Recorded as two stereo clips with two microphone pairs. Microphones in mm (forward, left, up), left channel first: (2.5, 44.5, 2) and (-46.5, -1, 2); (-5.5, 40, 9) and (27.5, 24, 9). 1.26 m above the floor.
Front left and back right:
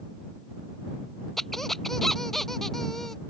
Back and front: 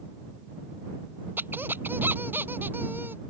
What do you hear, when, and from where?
1.4 s a squeak: 45° right